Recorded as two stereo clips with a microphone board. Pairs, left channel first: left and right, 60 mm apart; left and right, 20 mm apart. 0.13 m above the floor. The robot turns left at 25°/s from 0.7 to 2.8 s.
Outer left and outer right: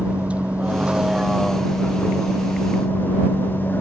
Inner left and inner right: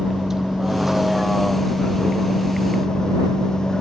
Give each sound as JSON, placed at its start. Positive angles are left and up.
{"t": 0.0, "sound": "a vehicle", "azimuth_deg": -160}